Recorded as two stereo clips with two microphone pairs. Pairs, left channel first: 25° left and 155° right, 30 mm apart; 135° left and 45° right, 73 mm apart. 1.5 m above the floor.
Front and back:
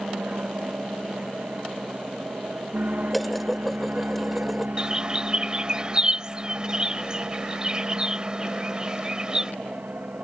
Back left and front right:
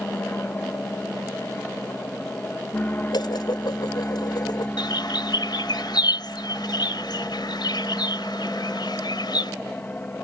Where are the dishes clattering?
115° left.